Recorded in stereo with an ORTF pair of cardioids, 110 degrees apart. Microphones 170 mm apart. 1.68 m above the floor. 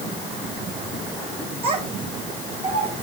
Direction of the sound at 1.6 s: 35° right.